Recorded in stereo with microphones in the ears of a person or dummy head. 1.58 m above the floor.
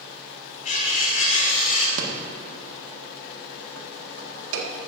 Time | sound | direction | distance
0.7 | cutlery clinking | 50° left (ahead or behind) | 3 m
2.0 | a rattle | 85° right | 1.8 m